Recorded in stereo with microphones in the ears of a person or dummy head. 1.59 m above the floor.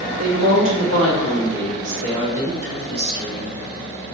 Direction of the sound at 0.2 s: 70° right (ahead or behind).